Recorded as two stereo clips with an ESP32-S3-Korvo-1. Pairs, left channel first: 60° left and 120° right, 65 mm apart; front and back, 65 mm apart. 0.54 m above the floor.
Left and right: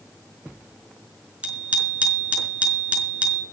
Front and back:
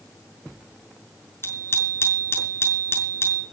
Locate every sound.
1.4 s a bicycle bell: 55° right, 5 m